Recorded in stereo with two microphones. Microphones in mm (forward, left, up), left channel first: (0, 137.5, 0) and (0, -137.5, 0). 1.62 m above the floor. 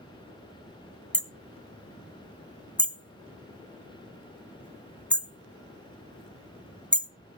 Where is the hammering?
5° left (ahead or behind), 0.8 m.